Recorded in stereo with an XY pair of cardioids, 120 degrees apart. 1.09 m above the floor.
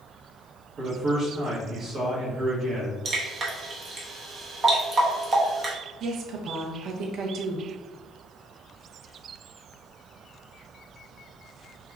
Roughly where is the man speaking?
Ahead right.